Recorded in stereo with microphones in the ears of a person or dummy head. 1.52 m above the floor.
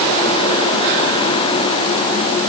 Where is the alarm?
I don't hear an alarm.